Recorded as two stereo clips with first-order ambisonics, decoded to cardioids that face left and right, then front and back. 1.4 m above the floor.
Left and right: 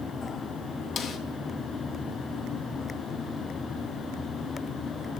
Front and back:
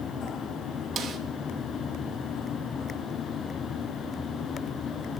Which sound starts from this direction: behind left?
A snare drum, at 1.0 s.